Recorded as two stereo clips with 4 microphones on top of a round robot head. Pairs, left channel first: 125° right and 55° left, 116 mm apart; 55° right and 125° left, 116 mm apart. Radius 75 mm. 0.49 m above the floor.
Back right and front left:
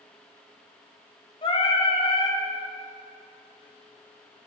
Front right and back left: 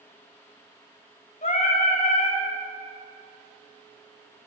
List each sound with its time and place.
1.4 s singing: 80° right, 2 m